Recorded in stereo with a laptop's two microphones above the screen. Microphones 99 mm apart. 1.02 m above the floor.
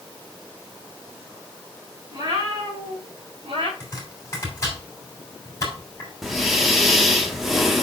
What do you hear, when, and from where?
2.1 s a cat meowing: 40° right (ahead or behind), 4 m; by 3.7 s 75° right (ahead or behind), 3.5 m
3.8 s chopping: 30° left (ahead or behind), 2.5 m
6.2 s breathing: centre (ahead or behind), 0.9 m